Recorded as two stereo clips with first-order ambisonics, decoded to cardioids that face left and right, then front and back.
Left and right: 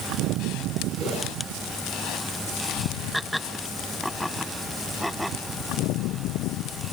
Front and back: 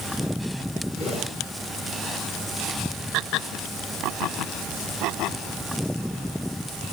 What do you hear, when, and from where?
0.9 s a whoosh: 45° right, 5.5 m